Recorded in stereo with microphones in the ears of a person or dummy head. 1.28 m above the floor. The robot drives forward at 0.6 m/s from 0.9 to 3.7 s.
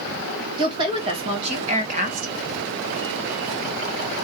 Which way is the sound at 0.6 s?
25° right (ahead or behind).